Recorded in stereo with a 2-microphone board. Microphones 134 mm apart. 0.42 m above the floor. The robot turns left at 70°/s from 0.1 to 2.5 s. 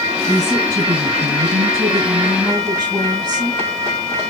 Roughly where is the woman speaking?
Ahead.